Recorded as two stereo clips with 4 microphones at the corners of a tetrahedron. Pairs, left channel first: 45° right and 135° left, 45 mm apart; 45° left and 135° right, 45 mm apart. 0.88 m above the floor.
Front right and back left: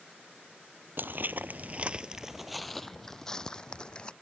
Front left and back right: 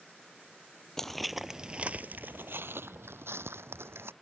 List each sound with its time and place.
1.0 s footsteps: 120° left; by 4.1 s 110° right